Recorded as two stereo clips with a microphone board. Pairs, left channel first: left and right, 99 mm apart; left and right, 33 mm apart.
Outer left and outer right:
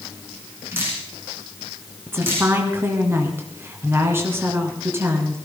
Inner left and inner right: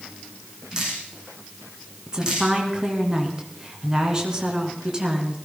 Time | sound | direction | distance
0.7 | dripping | 25° right (ahead or behind) | 6.5 m
2.1 | a woman speaking | 25° right (ahead or behind) | 2.5 m